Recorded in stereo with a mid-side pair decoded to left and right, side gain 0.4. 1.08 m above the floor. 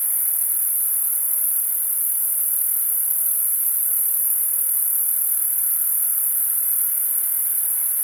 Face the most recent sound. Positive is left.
turn(degrees=-5)